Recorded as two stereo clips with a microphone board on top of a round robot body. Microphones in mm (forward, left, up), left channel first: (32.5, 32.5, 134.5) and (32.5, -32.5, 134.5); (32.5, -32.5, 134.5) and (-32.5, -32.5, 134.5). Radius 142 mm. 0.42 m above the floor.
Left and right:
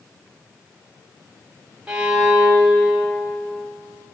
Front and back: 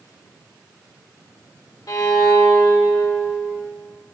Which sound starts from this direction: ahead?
A violin, at 1.9 s.